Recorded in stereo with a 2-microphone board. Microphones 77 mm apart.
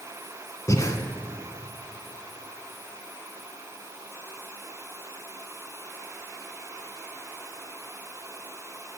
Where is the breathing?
45° left (ahead or behind), 1.6 m.